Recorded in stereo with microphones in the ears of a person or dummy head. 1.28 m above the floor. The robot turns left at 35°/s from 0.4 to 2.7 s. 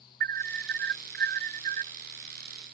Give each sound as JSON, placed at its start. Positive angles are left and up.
{"t": 0.2, "sound": "an alarm", "azimuth_deg": -70}